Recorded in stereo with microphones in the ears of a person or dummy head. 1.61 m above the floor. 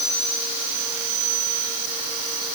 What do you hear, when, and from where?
Only background noise.